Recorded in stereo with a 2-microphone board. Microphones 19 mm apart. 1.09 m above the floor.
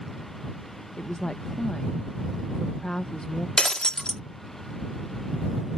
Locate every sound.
1.0 s a woman speaking: 50° left (ahead or behind)
3.6 s breaking glass: 50° left (ahead or behind)